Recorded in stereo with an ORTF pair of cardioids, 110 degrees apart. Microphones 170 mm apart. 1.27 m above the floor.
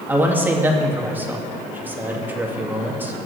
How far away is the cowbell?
I don't hear a cowbell.